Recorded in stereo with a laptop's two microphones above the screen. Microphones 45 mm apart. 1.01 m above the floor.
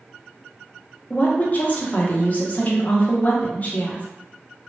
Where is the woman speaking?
35° left (ahead or behind), 0.6 m.